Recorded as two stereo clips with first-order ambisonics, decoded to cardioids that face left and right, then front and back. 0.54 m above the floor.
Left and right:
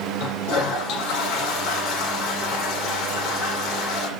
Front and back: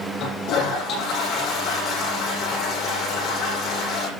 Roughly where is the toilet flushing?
Ahead left.